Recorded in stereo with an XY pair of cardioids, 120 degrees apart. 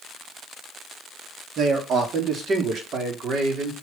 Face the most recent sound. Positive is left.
turn(degrees=-50)